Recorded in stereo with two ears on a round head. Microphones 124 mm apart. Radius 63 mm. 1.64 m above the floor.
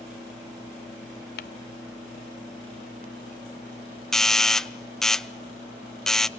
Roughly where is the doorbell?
Centre.